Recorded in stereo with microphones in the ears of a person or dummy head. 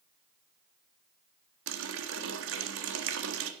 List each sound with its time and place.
1.7 s a running tap: 80° right, 1.3 m